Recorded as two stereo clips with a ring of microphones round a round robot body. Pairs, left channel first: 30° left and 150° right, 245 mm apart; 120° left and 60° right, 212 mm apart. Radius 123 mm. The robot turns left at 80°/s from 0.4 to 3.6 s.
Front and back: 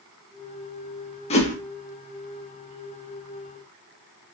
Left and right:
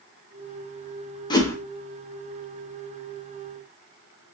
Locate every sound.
1.3 s a whoosh: 70° left, 0.8 m; by 1.6 s 50° left, 0.8 m